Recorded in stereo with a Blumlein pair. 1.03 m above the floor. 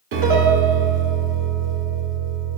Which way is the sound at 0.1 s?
50° right.